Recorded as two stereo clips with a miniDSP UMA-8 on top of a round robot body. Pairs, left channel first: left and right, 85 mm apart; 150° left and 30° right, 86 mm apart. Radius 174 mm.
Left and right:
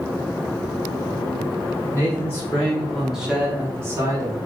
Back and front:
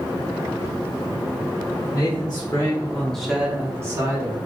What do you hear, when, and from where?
1.9 s a man speaking: 145° left, 1.5 m; by 4.4 s 50° right, 1.4 m